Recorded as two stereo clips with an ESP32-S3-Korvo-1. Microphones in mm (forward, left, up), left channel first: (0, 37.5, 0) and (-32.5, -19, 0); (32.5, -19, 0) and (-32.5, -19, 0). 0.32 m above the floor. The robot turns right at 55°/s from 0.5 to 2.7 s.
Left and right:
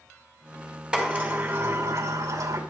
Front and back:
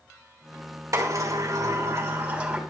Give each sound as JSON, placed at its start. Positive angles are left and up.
{"t": 0.9, "sound": "a sliding door", "azimuth_deg": 165, "distance_m": 2.5}